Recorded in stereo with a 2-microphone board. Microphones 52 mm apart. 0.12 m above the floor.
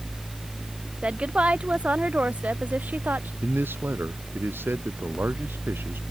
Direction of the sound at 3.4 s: 40° right (ahead or behind).